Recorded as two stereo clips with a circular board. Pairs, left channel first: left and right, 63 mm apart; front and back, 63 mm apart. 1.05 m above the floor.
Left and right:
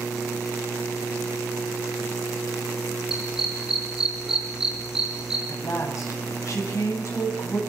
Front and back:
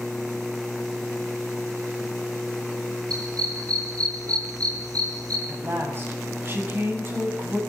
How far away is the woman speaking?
About 7.5 m.